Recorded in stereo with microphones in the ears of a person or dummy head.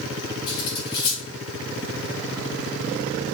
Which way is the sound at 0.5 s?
20° left (ahead or behind).